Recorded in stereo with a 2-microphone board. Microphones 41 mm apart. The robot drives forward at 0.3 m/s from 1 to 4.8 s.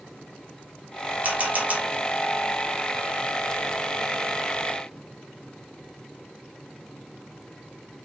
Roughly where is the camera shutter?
Right.